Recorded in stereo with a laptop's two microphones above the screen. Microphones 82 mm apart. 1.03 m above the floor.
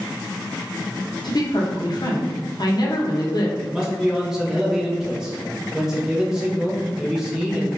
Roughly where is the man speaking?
Centre.